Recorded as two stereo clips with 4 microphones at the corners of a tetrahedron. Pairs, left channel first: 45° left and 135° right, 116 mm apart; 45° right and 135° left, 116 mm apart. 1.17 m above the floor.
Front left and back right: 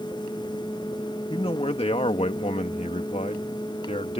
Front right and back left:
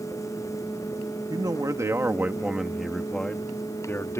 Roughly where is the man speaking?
Left.